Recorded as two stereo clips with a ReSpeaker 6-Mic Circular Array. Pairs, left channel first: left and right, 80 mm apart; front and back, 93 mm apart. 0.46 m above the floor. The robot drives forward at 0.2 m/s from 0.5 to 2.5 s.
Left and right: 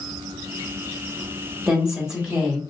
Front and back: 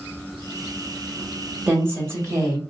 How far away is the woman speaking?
About 1.2 m.